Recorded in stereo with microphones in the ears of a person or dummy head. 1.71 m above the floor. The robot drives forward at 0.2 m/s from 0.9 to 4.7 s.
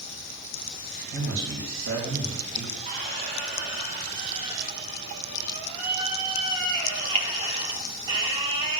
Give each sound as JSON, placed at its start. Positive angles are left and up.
{"t": 1.1, "sound": "a man speaking", "side_deg": -75, "distance_m": 2.5}
{"t": 2.9, "sound": "a squeak", "side_deg": -25, "distance_m": 0.6}